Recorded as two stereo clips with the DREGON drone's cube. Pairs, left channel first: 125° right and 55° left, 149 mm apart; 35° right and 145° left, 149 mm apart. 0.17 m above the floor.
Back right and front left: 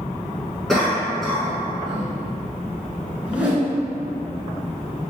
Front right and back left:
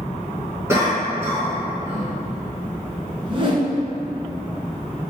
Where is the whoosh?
130° left, 0.8 m.